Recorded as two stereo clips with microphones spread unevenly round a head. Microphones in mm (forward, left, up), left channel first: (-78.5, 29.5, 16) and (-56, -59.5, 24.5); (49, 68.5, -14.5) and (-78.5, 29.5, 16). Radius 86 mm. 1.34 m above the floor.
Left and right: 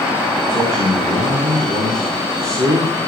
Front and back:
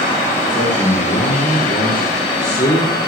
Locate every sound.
0.5 s a man speaking: 50° right, 2.5 m